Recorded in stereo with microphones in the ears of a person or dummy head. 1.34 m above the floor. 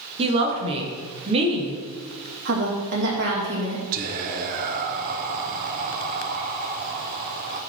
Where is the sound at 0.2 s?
30° right (ahead or behind), 1.8 m.